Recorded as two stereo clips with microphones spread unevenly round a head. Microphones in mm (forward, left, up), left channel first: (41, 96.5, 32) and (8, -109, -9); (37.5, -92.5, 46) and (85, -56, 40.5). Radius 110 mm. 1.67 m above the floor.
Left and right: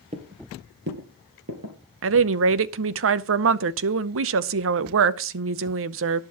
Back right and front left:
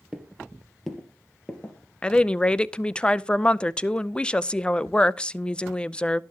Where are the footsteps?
40° right, 2 m; by 1.8 s 85° right, 3 m.